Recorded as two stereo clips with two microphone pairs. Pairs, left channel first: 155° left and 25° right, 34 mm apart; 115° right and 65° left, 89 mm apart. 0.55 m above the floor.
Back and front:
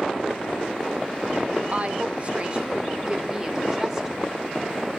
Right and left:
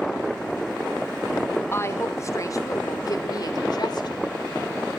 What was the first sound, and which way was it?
A woman speaking, 60° right.